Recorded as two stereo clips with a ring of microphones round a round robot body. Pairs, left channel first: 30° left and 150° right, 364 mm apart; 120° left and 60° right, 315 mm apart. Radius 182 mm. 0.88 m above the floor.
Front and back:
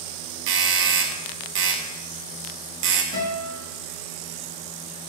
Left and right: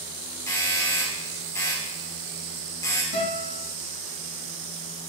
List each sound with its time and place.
0.5 s a doorbell: 165° right, 0.8 m
3.1 s a guitar: 90° left, 3 m